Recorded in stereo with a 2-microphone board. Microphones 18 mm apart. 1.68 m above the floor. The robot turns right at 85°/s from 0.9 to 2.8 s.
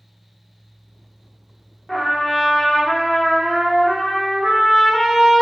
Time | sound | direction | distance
1.9 | a trumpet | 15° left (ahead or behind) | 0.7 m